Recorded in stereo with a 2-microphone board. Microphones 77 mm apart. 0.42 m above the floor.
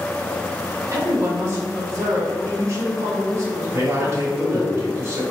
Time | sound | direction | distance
0.9 | a woman speaking | 40° right (ahead or behind) | 1.4 m
3.7 | a man speaking | 35° right (ahead or behind) | 1.6 m